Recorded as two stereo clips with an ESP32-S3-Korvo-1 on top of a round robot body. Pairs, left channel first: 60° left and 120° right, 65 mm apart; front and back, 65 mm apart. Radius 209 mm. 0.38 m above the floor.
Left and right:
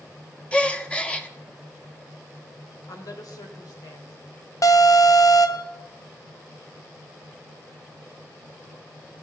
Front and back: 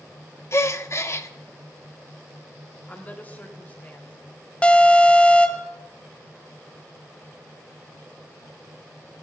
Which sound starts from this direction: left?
An alarm, at 4.6 s.